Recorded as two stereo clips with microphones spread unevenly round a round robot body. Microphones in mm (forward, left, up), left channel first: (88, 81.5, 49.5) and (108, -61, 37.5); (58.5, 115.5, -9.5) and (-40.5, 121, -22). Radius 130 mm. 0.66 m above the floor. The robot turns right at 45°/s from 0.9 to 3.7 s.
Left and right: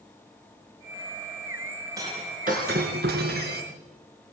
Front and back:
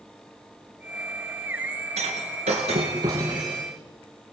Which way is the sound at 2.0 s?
160° right.